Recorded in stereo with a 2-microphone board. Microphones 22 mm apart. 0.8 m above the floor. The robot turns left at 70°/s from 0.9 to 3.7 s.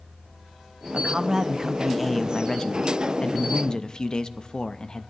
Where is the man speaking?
105° right, 0.5 m; by 5.1 s 60° left, 0.5 m.